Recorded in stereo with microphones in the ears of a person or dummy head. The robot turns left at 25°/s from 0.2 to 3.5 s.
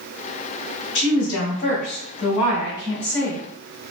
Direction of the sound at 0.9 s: 65° left.